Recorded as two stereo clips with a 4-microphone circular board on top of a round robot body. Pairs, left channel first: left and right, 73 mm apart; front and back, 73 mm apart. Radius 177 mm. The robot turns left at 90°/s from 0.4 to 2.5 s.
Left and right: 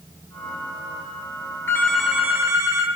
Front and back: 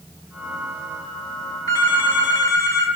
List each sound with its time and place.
1.7 s a phone ringing: 30° left, 1.7 m; by 2.9 s 45° right, 1.7 m